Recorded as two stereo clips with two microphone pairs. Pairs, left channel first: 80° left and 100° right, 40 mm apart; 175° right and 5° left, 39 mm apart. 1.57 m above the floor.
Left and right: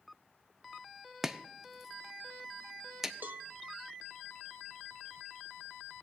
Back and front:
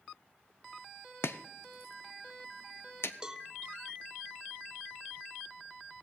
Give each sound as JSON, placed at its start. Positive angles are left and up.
{"t": 1.2, "sound": "chopping", "azimuth_deg": 175, "distance_m": 0.7}
{"t": 3.2, "sound": "a cowbell", "azimuth_deg": -70, "distance_m": 0.6}